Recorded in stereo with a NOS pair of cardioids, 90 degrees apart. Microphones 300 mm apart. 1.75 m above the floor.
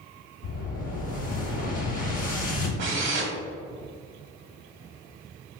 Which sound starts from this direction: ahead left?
An explosion, at 0.4 s.